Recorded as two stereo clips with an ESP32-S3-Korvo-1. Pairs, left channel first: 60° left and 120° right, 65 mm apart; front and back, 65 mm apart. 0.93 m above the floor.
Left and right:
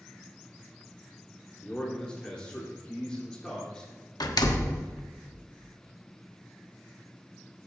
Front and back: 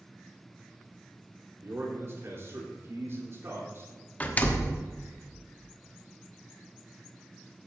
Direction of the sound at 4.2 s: 65° left.